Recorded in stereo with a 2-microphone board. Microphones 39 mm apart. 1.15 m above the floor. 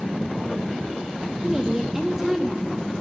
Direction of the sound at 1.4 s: 15° right (ahead or behind).